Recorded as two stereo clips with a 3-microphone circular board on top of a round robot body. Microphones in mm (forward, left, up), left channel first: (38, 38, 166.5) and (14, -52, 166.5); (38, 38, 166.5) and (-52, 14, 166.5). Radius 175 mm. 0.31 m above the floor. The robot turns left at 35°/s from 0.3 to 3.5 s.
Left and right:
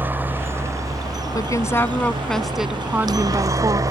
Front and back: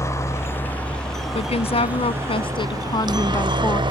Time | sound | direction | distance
0.0 | a helicopter | 40° right | ?
1.4 | a woman speaking | 25° left | ?